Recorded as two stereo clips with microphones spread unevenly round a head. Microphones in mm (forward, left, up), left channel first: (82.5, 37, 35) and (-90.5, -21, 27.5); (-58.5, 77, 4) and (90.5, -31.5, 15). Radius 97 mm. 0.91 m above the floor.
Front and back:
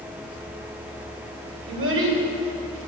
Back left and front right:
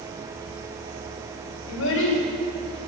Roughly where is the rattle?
I don't hear a rattle.